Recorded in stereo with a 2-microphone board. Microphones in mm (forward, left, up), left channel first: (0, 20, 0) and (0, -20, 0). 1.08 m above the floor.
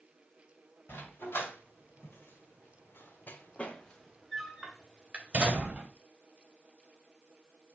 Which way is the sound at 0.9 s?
70° left (ahead or behind).